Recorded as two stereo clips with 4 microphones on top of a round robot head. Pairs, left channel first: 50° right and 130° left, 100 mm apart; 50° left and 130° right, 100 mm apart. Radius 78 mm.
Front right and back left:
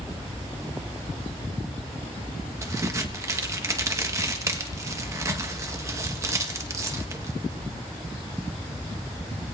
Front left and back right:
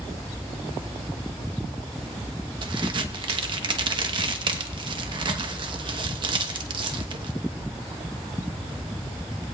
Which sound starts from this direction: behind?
A crack, at 2.6 s.